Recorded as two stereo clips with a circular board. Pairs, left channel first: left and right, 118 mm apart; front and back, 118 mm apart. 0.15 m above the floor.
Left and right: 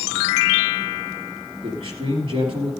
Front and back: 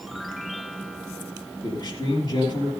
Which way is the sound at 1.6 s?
50° right.